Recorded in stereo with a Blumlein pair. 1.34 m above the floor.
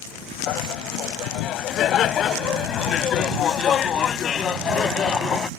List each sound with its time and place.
0.5 s laughter: 35° left; by 5.5 s 20° left